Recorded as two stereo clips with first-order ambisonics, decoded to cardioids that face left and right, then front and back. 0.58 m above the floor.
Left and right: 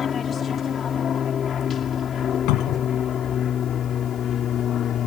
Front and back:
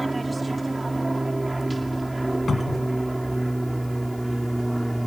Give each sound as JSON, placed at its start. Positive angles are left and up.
{"t": 0.0, "sound": "an aircraft", "azimuth_deg": 110}
{"t": 2.5, "sound": "a cupboard door", "azimuth_deg": 75}